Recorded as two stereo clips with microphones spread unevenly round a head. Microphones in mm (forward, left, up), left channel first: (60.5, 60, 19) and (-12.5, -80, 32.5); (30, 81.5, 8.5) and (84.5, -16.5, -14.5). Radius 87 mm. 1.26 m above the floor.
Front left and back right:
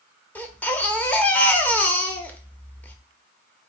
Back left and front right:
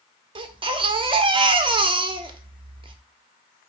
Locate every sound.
0.3 s a baby crying: 20° right, 1.0 m